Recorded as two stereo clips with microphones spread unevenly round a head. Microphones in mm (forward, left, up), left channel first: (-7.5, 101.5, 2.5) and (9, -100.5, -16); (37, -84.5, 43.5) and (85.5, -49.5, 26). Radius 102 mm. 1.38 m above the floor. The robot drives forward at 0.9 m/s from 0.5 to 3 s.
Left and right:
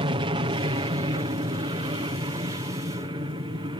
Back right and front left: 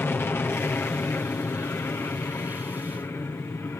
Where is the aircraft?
110° right; by 3.8 s 130° right.